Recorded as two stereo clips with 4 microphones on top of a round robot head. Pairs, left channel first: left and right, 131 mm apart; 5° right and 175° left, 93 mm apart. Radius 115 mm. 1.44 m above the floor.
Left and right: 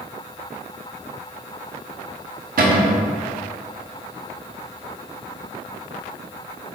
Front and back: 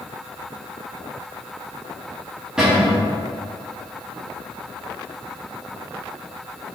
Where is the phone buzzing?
I don't hear a phone buzzing.